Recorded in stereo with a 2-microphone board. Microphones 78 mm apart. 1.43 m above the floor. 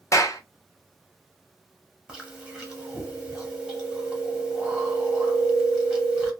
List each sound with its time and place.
0.1 s a clap: 45° left (ahead or behind), 0.7 m
2.1 s chewing: 15° right (ahead or behind), 1.0 m